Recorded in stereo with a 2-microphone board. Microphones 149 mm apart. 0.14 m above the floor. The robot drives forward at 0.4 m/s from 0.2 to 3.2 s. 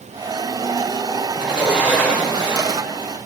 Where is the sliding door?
10° right (ahead or behind), 2.5 m; by 2.9 s 5° right (ahead or behind), 3 m.